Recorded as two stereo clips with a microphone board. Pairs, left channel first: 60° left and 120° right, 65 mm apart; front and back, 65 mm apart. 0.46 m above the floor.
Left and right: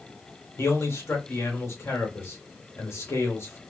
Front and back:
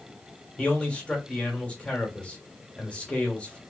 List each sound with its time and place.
0.6 s a man speaking: 60° left, 1.4 m